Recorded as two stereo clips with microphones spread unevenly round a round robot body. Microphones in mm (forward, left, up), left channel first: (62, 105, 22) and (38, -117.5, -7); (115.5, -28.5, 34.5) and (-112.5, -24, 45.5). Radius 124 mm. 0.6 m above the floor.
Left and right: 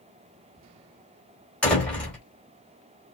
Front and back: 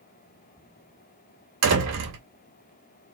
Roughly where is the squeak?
No squeak in this recording.